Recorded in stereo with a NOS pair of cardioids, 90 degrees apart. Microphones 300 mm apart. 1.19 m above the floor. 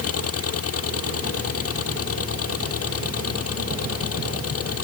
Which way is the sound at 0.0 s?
50° left.